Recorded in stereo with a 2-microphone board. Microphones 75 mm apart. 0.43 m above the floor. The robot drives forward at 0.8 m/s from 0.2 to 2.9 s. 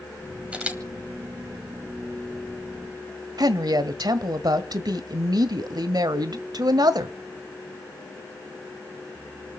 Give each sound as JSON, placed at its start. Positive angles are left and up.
{"t": 0.5, "sound": "a camera shutter", "side_deg": -15, "distance_m": 1.8}
{"t": 3.4, "sound": "a woman speaking", "side_deg": -60, "distance_m": 1.6}